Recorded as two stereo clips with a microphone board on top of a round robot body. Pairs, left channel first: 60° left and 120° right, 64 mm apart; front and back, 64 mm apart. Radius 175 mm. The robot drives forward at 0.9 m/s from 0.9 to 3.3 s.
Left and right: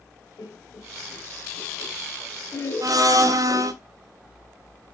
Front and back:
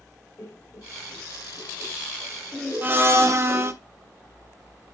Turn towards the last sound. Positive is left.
turn(degrees=-140)